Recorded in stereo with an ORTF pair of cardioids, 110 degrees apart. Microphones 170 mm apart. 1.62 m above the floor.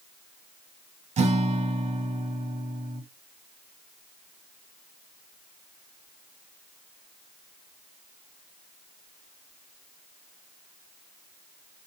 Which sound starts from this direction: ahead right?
A guitar, at 1.2 s.